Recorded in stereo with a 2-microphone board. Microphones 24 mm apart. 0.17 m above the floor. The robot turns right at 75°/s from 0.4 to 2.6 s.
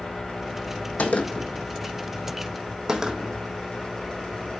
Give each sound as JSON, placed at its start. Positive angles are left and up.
{"t": 1.0, "sound": "a gunshot", "side_deg": 85, "distance_m": 1.3}